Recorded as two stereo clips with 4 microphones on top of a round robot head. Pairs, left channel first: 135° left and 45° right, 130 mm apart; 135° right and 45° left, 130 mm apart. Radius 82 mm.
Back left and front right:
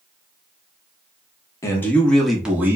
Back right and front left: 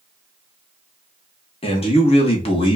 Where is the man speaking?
160° right, 1.1 m; by 2.8 s 110° right, 1.0 m.